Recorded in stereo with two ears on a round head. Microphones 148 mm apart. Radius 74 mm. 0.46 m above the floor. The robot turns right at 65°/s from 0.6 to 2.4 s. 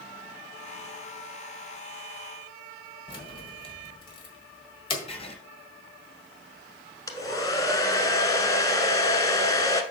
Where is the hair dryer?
20° left (ahead or behind), 1.0 m.